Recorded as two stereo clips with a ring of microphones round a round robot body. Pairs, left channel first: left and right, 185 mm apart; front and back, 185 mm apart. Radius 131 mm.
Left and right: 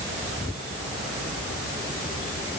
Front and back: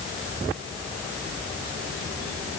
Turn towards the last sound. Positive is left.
No sound to turn to.